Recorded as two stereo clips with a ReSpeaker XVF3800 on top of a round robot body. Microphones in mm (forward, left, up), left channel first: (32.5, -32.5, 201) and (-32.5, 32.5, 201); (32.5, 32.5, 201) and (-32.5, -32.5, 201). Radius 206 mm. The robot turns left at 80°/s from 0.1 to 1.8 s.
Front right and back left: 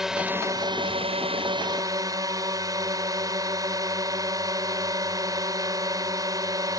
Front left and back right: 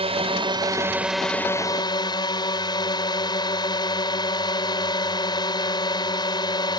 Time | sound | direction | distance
0.0 | a drone | 140° right | ?